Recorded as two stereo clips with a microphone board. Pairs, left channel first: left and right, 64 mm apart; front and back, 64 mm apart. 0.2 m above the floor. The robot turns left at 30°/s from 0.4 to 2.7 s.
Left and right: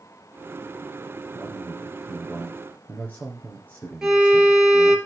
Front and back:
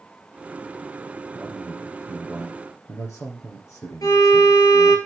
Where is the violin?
10° right, 2.5 m.